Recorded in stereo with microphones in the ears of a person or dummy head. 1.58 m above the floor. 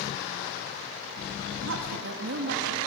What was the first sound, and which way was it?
A woman speaking, 70° right (ahead or behind).